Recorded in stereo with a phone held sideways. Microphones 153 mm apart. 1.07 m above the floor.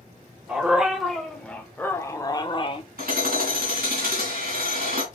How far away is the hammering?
About 2.5 m.